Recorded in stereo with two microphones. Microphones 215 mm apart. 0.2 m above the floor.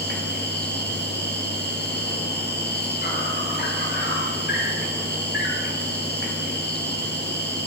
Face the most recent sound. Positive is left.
turn(degrees=50)  # may be behind; listen again after turning